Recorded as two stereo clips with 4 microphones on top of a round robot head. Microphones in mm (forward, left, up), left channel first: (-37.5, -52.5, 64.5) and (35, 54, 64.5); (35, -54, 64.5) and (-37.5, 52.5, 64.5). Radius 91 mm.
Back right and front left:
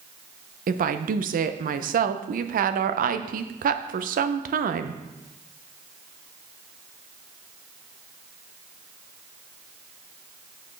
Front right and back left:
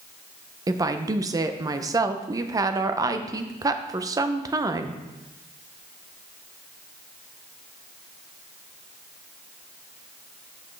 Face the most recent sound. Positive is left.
turn(degrees=60)